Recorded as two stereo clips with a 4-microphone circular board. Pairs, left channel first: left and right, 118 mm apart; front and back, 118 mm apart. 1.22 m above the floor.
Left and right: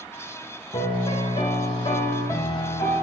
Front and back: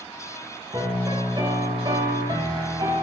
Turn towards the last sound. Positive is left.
turn(degrees=130)